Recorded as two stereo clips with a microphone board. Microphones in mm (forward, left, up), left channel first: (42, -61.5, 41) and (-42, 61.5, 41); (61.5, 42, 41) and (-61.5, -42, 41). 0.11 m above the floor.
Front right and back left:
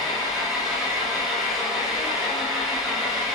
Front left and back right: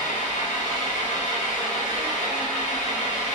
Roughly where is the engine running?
Ahead left.